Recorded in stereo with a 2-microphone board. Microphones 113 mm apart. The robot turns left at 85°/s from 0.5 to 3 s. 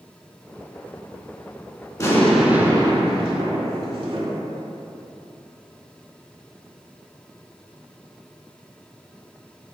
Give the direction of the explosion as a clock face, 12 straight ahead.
11 o'clock.